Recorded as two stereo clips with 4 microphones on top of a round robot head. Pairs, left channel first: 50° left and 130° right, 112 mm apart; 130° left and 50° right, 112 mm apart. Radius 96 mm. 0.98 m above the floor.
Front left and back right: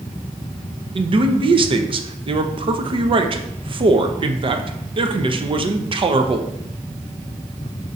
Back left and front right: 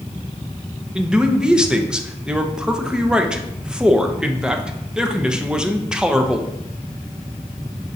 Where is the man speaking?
130° right, 0.7 m.